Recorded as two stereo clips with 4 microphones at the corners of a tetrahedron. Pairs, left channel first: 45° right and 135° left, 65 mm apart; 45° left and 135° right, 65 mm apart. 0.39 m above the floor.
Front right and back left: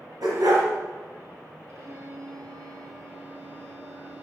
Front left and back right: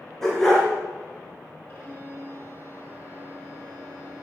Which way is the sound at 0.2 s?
125° left.